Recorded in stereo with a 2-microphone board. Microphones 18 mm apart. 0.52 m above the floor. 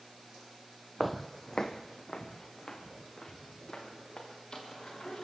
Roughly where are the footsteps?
Centre.